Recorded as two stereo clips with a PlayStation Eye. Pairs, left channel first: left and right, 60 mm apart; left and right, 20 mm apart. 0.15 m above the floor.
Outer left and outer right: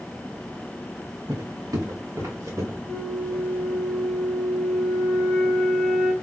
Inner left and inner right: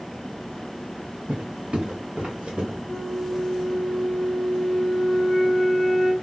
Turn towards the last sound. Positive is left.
turn(degrees=-20)  # may be behind; listen again after turning